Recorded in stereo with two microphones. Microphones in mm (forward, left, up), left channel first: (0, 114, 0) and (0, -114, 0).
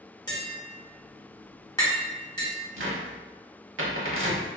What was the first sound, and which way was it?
Tapping, 15° left (ahead or behind).